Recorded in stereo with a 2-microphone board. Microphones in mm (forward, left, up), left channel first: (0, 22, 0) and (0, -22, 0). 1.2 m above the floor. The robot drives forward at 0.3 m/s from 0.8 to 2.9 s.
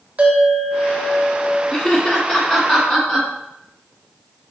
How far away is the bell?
About 0.5 m.